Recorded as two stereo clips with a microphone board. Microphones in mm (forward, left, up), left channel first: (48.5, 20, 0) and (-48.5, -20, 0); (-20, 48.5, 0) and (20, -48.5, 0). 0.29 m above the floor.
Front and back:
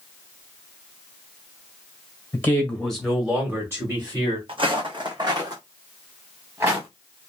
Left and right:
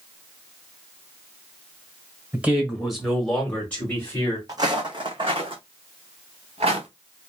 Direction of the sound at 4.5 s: 125° right.